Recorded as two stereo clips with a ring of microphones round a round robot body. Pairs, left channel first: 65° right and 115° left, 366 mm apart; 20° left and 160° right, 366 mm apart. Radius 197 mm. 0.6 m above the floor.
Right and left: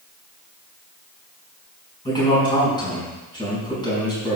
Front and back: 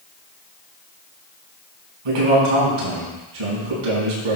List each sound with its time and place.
2.0 s a man speaking: 145° right, 5 m